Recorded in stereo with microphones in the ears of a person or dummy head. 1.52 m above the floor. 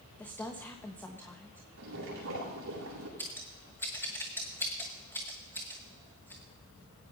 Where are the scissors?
15° left (ahead or behind), 1.0 m.